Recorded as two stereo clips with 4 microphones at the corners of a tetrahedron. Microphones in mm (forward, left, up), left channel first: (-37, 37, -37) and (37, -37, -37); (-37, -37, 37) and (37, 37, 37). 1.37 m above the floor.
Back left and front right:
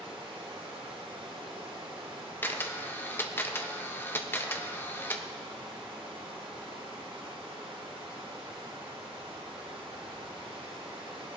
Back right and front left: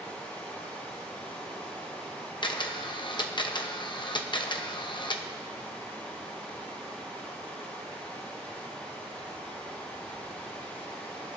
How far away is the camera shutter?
About 0.8 m.